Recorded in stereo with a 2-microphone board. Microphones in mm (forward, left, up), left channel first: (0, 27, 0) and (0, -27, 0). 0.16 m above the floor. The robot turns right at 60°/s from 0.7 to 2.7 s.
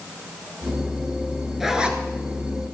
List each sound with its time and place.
1.6 s a zipper: 5° right (ahead or behind), 1.2 m; by 2.0 s 25° right (ahead or behind), 1.2 m